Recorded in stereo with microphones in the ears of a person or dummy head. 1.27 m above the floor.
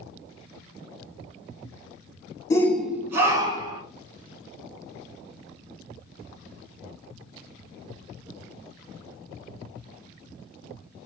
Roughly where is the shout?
Left.